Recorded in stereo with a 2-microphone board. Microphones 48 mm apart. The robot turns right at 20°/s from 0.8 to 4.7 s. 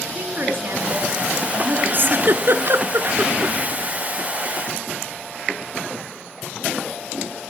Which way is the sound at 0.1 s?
55° right (ahead or behind).